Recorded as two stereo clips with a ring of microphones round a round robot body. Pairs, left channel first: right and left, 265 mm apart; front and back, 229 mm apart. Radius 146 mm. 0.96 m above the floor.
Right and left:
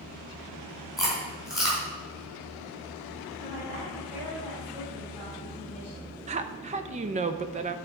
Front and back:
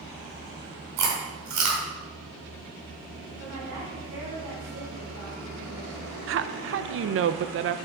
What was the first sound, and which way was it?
Chewing, straight behind.